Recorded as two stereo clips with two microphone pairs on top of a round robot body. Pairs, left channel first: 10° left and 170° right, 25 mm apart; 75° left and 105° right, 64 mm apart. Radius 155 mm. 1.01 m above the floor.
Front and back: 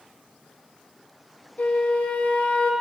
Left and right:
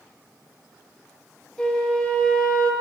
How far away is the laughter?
I don't hear laughter.